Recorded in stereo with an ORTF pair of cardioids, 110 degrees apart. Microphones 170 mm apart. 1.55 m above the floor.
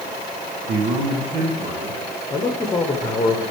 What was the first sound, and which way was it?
A man speaking, 60° right.